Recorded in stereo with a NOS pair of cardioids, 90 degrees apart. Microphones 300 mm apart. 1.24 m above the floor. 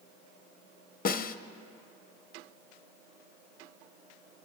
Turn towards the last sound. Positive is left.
turn(degrees=30)